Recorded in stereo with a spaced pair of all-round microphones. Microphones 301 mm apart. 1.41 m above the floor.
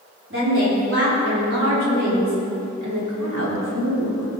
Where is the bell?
No bell in this recording.